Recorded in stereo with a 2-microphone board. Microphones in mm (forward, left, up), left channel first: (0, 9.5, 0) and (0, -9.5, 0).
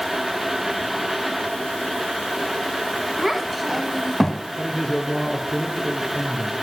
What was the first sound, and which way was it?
A child speaking, 5° right (ahead or behind).